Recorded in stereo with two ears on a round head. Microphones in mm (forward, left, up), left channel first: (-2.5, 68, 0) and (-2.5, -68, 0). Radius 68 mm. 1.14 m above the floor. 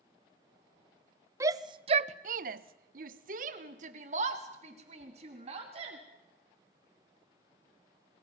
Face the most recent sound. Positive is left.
turn(degrees=-40)  # may be behind; listen again after turning